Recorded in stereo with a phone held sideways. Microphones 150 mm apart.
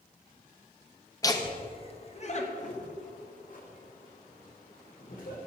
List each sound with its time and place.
1.2 s laughter: 20° left (ahead or behind), 1.1 m; by 5.4 s 65° left (ahead or behind), 3.5 m